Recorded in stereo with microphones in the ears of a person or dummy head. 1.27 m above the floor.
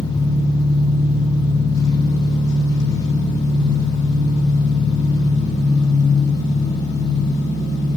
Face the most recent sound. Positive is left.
turn(degrees=25)  # may be behind; listen again after turning